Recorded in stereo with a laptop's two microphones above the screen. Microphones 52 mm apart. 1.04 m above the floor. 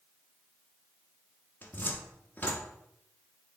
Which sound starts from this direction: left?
A cupboard door, at 1.6 s.